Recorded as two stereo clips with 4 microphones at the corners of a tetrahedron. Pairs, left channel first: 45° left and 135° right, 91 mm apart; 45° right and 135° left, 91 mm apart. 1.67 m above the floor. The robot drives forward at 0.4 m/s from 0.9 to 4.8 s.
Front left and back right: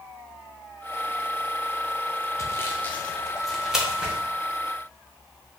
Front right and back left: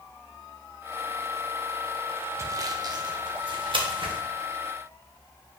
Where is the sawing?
85° left, 0.6 m; by 4.2 s 150° left, 0.9 m.